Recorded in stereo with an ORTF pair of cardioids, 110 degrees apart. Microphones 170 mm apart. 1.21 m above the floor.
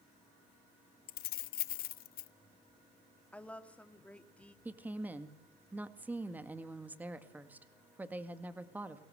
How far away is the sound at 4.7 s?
About 2 m.